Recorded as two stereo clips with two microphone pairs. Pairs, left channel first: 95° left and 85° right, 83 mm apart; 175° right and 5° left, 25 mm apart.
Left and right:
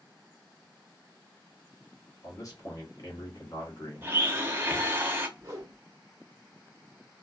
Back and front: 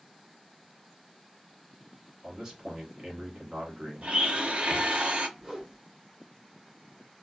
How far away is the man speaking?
About 1.1 m.